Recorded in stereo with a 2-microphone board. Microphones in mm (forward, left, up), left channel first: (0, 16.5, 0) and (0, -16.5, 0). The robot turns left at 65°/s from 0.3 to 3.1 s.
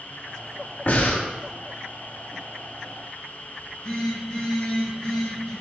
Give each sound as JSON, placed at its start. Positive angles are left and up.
{"t": 0.9, "sound": "breathing", "side_deg": 70, "distance_m": 0.9}
{"t": 3.6, "sound": "a phone buzzing", "side_deg": 35, "distance_m": 1.6}